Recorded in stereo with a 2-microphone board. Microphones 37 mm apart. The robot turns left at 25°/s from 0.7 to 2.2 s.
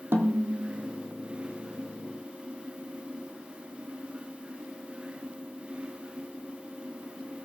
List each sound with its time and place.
0.1 s a snare drum: 75° right (ahead or behind), 1.8 m; by 0.9 s 80° right, 1.8 m